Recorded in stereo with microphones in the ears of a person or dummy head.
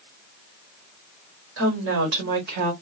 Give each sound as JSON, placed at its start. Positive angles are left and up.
{"t": 1.6, "sound": "a woman speaking", "side_deg": -75, "distance_m": 1.4}